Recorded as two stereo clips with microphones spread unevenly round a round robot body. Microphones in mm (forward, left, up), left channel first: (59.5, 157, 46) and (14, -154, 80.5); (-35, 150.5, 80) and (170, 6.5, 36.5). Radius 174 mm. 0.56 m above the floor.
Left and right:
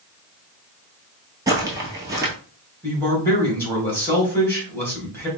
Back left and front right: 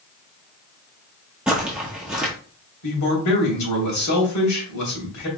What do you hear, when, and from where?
1.5 s footsteps: 140° right, 0.5 m
2.8 s a man speaking: 165° left, 2.5 m